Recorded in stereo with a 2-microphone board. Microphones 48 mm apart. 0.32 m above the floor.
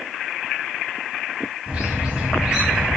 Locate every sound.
1.7 s a bird: 20° right (ahead or behind), 1.6 m